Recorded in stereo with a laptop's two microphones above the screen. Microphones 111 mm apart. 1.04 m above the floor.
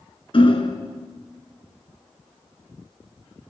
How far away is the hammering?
About 3 m.